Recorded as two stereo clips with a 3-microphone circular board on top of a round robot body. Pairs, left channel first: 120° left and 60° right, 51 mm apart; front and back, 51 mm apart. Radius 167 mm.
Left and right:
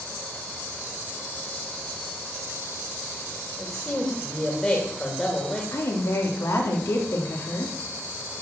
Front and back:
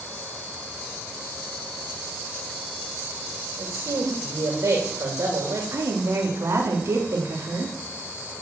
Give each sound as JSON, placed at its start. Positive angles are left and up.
{"t": 3.6, "sound": "a man speaking", "azimuth_deg": -165, "distance_m": 3.0}
{"t": 5.7, "sound": "a woman speaking", "azimuth_deg": 150, "distance_m": 3.0}